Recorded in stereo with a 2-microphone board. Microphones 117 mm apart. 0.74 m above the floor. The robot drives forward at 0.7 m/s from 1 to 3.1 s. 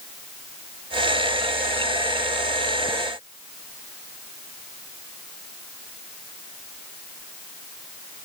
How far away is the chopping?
No chopping in this recording.